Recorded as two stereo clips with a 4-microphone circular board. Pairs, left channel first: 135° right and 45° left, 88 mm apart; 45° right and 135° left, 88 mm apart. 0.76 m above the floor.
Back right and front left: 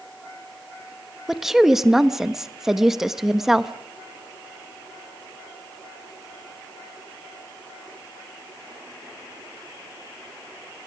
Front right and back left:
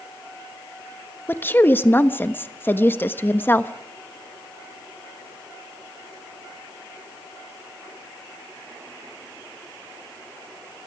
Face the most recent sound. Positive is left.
turn(degrees=-35)